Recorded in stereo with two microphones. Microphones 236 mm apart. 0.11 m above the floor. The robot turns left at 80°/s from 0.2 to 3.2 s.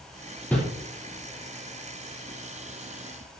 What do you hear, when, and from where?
0.5 s a whoosh: 5° left (ahead or behind), 3.5 m; by 0.6 s centre (ahead or behind), 3.5 m